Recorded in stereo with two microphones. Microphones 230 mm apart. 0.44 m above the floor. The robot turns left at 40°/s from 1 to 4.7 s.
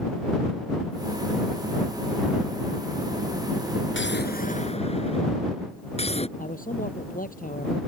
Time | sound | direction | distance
3.9 | an explosion | 60° left | ?
6.4 | a man speaking | 35° left (ahead or behind) | ?